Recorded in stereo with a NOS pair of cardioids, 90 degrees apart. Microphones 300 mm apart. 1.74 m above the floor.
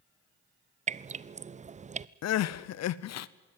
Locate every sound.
0.9 s dripping: 25° right, 0.5 m
2.2 s crying: 60° left, 0.8 m